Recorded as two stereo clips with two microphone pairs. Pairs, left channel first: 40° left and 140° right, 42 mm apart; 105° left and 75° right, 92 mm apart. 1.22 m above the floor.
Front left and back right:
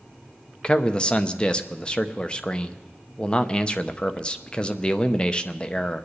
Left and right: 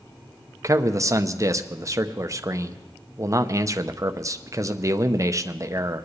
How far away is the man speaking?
About 0.7 m.